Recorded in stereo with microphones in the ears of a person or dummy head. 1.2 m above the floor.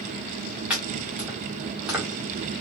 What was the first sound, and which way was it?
Chopping, 5° right (ahead or behind).